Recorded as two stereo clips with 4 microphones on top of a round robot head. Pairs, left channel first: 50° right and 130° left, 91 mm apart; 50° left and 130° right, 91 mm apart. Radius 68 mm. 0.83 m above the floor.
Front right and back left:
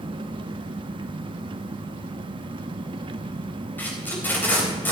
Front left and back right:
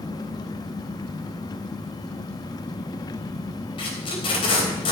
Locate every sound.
0.0 s an engine running: 95° left, 0.7 m
3.8 s tape being pulled: 20° left, 3.5 m